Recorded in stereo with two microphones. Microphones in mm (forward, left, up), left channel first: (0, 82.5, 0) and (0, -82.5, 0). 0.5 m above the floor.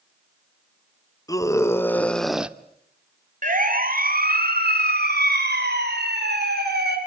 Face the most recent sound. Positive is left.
turn(degrees=-75)  # may be behind; listen again after turning